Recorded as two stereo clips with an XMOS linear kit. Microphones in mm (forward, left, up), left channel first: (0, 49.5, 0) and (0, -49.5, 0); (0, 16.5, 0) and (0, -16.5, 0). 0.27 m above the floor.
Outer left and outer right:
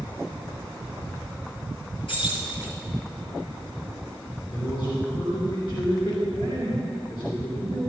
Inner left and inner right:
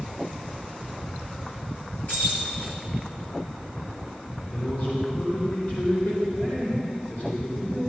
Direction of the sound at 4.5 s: 55° left (ahead or behind).